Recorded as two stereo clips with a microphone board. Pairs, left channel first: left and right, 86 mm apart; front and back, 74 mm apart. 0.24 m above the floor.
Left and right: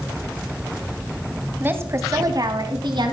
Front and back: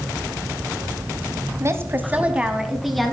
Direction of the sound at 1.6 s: 150° right.